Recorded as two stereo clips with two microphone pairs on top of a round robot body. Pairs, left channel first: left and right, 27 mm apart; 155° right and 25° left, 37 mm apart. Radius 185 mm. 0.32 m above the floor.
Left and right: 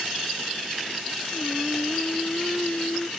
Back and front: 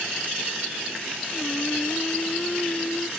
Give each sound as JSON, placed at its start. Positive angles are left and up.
{"t": 1.3, "sound": "singing", "azimuth_deg": 145}